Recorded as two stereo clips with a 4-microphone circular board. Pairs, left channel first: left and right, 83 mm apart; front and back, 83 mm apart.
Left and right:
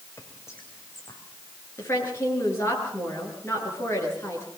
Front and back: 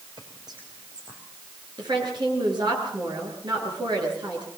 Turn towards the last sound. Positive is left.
turn(degrees=150)